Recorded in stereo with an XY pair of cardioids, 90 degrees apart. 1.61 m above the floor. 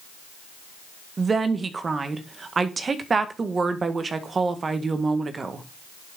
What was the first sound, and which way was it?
A woman speaking, 40° right.